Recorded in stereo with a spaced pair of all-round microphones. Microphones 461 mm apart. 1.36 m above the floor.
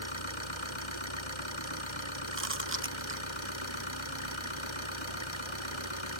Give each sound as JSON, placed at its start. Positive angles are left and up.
{"t": 0.0, "sound": "an engine running", "side_deg": 90}
{"t": 2.3, "sound": "chewing", "side_deg": -25}